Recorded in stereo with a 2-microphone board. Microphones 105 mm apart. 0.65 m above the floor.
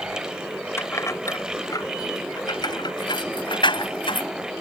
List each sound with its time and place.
0.8 s keys jangling: 25° left (ahead or behind); by 4.3 s 55° left (ahead or behind)